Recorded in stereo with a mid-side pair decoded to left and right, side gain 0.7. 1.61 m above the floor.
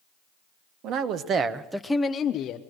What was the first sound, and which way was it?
A man speaking, 60° right.